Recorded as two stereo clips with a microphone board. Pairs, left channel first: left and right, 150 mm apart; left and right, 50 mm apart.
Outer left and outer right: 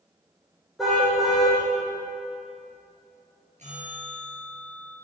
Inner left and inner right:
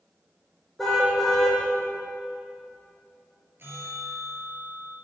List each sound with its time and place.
0.8 s a car horn: centre (ahead or behind), 5.5 m
3.6 s a bell: 50° right (ahead or behind), 6.5 m